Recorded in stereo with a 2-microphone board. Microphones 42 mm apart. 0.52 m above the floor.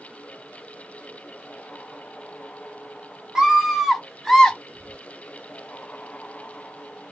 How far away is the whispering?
About 0.7 m.